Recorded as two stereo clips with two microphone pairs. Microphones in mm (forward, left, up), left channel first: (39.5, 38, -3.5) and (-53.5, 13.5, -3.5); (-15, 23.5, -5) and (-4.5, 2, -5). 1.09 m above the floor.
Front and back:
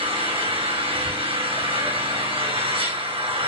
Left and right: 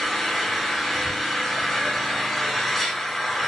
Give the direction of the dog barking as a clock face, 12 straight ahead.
No dog barking in this recording.